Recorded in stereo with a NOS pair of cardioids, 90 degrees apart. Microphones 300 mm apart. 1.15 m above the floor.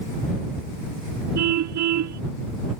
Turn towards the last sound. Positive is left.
turn(degrees=-65)